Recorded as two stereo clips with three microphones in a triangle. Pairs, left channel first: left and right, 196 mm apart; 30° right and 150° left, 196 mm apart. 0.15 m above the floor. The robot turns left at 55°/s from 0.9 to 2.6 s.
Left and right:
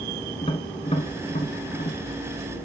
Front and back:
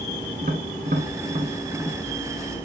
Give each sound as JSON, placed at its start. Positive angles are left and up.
{"t": 0.4, "sound": "tapping", "azimuth_deg": 135, "distance_m": 1.2}